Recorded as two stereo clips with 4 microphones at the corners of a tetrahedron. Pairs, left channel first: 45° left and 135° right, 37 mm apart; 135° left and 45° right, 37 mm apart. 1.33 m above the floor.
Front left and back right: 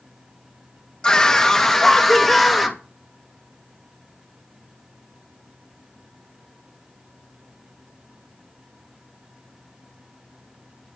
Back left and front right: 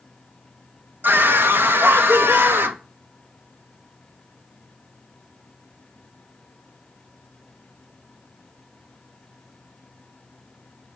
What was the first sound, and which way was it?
A scream, 25° right.